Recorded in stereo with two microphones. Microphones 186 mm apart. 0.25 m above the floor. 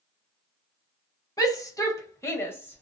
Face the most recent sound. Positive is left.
turn(degrees=10)  # may be behind; listen again after turning